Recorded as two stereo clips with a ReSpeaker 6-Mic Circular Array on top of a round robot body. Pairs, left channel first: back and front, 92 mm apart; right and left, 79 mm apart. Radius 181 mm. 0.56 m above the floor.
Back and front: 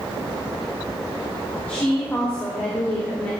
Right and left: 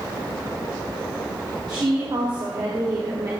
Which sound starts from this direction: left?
A woman speaking, at 1.7 s.